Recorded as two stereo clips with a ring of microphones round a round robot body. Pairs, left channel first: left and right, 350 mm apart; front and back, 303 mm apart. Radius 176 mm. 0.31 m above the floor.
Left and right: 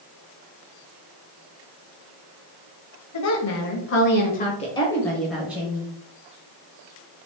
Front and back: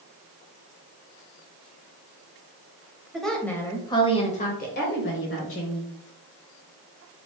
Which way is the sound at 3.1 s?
90° left.